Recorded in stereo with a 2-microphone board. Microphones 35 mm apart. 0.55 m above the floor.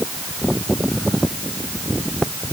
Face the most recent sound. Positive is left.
No sound to turn to.